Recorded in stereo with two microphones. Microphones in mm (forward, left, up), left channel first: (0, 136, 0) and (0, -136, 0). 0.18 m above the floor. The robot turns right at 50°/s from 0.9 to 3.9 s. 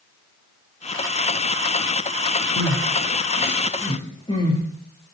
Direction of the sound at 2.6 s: 85° left.